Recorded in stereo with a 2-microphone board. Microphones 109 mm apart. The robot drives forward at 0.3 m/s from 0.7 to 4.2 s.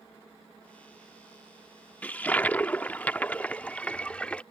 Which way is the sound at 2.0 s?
15° left (ahead or behind).